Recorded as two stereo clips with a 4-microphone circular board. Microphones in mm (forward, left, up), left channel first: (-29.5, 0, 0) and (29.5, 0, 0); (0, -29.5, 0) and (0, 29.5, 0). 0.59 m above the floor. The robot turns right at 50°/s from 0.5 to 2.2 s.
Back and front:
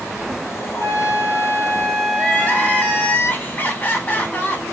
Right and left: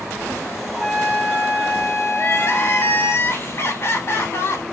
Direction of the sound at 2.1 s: 125° right.